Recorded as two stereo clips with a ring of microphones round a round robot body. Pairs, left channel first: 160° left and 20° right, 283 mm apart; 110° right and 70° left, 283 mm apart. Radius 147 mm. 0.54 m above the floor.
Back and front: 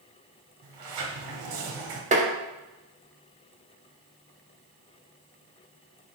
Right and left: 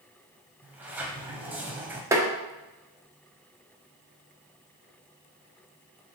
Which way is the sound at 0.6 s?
15° right.